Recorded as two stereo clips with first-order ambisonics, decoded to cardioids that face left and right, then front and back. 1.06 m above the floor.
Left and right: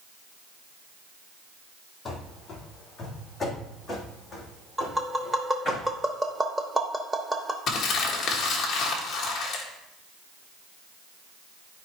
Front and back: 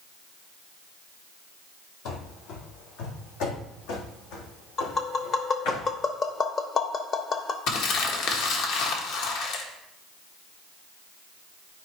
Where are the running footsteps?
20° left, 2.0 m; by 5.8 s straight ahead, 4 m.